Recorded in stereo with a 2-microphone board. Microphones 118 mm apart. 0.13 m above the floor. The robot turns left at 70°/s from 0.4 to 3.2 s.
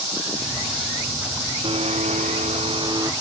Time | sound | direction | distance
1.6 | a blender | 50° right | ?